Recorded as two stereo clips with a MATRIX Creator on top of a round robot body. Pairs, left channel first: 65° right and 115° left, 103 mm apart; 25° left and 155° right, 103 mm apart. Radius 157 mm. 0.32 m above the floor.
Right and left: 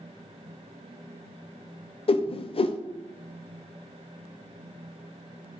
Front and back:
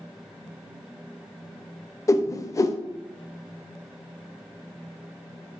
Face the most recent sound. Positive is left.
turn(degrees=-35)